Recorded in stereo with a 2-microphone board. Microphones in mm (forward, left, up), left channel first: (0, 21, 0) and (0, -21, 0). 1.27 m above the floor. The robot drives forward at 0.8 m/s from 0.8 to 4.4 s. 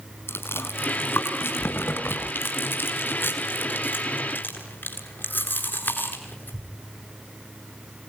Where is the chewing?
80° left, 4.5 m; by 6.7 s 55° left (ahead or behind), 5.5 m.